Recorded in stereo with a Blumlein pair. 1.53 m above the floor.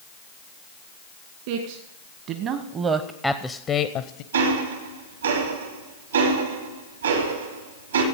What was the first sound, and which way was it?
A man speaking, 50° right.